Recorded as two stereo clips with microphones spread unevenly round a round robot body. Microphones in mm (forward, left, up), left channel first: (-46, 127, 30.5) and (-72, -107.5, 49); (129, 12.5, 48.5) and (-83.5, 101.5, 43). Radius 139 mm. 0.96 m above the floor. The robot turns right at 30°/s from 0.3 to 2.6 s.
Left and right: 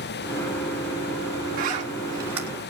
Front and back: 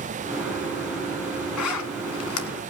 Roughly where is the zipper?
Ahead right.